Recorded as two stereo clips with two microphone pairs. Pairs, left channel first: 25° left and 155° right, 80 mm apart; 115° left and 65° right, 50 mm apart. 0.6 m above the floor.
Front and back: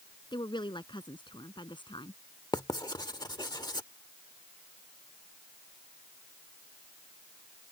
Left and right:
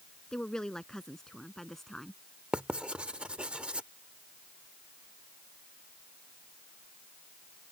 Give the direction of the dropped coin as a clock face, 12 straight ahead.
I don't hear a dropped coin.